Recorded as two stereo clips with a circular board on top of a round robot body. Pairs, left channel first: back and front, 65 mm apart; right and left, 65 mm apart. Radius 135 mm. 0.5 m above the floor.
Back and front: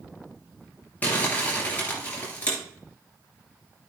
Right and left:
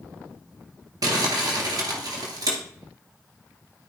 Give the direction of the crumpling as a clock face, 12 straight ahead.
8 o'clock.